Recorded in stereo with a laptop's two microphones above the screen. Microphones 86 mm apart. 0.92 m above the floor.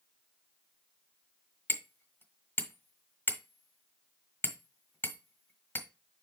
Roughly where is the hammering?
Left.